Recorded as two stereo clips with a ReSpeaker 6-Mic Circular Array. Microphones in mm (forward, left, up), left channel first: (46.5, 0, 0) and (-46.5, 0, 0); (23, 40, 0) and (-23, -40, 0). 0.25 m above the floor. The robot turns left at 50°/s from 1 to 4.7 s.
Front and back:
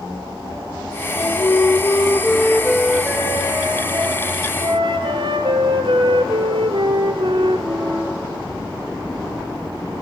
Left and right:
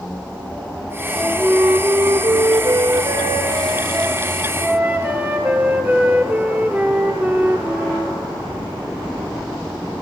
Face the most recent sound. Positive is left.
turn(degrees=170)